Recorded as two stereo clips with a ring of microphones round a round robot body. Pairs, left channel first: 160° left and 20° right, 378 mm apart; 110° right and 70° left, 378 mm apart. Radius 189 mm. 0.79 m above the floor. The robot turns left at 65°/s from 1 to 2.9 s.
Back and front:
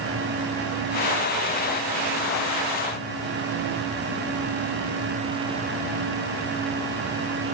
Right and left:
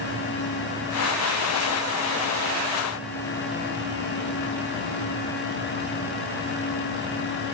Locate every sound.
Only background noise.